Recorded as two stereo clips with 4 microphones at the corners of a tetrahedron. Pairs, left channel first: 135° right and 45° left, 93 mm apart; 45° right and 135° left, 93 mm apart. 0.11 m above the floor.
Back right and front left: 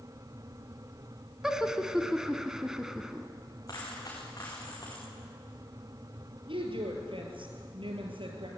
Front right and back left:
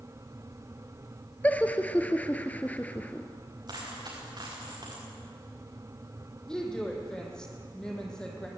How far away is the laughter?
About 1.1 m.